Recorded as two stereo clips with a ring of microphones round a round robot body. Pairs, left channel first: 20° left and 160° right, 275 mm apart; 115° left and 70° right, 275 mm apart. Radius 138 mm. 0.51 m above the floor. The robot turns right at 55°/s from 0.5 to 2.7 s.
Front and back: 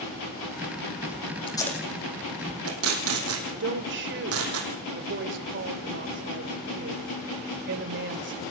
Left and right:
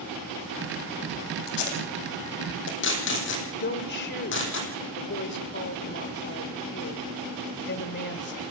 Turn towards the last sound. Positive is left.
turn(degrees=160)